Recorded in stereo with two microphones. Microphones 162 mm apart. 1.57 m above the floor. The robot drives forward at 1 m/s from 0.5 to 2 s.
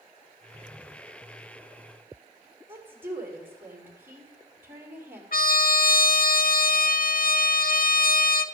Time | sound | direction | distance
2.7 | a woman speaking | 15° right (ahead or behind) | 3 m
5.3 | a trumpet | 70° left (ahead or behind) | 0.6 m